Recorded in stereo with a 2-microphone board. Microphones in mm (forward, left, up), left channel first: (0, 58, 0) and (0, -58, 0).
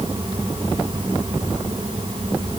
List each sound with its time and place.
Only background noise.